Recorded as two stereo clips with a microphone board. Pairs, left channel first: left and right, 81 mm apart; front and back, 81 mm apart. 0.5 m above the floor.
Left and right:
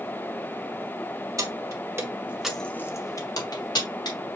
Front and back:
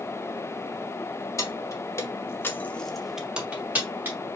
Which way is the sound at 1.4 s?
50° right.